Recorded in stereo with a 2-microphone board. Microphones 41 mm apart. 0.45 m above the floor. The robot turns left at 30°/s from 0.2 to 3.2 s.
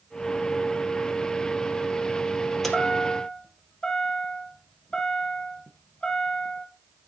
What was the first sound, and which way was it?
A chime, 5° left (ahead or behind).